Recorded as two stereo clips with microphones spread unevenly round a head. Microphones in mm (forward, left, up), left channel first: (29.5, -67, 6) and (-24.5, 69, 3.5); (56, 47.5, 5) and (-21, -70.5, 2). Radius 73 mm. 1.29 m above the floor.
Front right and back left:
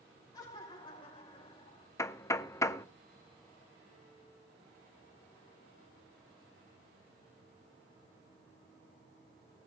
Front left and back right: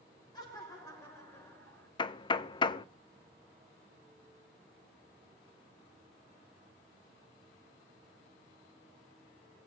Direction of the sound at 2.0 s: Straight ahead.